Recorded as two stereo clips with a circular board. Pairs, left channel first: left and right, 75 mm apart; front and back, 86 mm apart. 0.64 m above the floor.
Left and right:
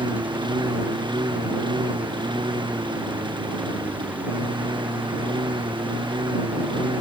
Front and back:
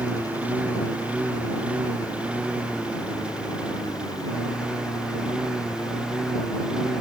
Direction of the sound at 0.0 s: 105° right.